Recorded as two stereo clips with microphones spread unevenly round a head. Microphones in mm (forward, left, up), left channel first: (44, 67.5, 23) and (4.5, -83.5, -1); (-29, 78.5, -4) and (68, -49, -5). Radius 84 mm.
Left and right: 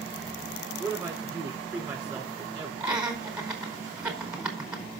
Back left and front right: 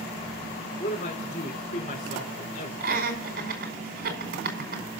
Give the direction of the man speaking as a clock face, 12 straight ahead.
6 o'clock.